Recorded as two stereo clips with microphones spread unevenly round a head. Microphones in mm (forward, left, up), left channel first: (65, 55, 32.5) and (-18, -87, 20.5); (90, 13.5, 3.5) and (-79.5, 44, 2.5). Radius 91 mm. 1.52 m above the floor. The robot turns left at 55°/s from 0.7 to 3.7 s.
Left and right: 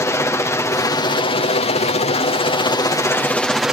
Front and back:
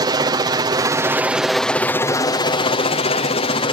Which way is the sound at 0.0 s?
125° left.